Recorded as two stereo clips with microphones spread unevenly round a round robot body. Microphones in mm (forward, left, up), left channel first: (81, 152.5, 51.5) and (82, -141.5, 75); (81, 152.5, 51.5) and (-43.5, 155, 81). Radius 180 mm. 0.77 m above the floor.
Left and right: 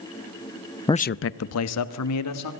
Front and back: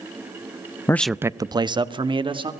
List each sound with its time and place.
0.9 s a man speaking: 25° left, 0.6 m; by 2.5 s 125° left, 2.5 m